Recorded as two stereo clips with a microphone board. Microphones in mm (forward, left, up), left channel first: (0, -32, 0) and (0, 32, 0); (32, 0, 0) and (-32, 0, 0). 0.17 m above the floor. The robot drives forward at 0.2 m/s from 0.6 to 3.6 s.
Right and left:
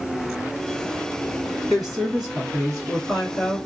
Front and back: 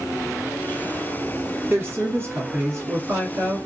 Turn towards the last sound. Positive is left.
turn(degrees=180)